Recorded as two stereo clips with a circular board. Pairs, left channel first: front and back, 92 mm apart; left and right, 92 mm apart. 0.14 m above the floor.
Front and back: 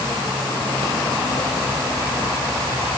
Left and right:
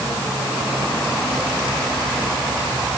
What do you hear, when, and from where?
Only background noise.